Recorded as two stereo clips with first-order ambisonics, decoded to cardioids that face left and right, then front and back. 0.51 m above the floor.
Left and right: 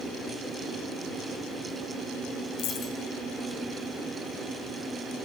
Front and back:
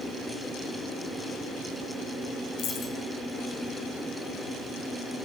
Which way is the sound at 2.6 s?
55° left.